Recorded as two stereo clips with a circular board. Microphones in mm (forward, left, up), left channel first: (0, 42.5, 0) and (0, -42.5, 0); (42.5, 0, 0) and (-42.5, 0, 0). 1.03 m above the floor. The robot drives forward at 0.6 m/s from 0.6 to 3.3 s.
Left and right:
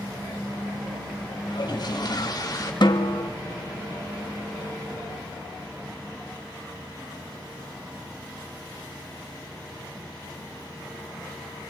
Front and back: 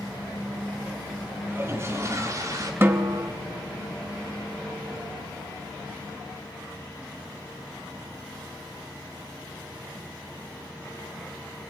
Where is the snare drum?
115° left, 1.4 m; by 3.3 s 125° left, 1.6 m.